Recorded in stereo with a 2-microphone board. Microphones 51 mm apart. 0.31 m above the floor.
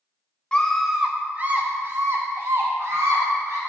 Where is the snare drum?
No snare drum in this recording.